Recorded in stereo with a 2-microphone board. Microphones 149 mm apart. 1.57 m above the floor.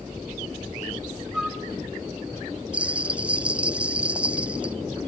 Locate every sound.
1.3 s a flute: 5° right (ahead or behind), 1.7 m
2.7 s a bell: 10° right (ahead or behind), 0.5 m